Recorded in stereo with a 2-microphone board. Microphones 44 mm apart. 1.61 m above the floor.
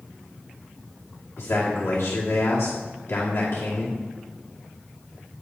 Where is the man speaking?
85° left, 2 m.